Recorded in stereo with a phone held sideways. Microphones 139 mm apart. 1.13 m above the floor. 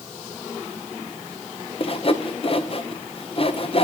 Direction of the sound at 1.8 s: 45° left (ahead or behind).